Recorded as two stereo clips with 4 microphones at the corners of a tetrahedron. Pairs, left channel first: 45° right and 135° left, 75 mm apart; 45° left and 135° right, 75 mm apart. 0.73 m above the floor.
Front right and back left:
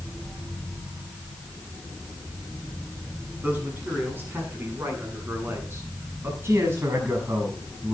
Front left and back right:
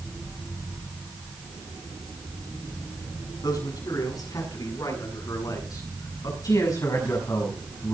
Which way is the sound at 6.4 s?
80° left.